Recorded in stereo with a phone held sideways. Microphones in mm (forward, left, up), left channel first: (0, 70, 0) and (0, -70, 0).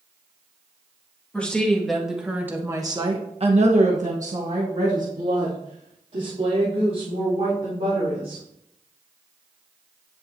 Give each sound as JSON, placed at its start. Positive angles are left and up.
{"t": 1.3, "sound": "a woman speaking", "side_deg": 10, "distance_m": 1.9}